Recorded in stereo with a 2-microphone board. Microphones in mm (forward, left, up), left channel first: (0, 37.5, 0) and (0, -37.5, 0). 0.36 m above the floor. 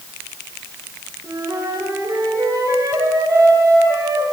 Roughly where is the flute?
Right.